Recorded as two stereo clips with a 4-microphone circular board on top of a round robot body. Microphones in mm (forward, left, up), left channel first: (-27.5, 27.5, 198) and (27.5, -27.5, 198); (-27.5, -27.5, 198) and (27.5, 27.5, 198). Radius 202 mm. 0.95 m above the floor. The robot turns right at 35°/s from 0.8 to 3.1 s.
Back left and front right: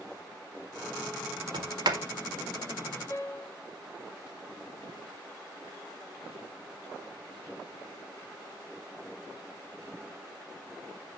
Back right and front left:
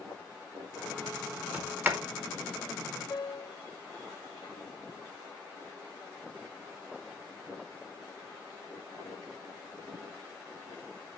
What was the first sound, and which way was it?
A sliding door, 30° right.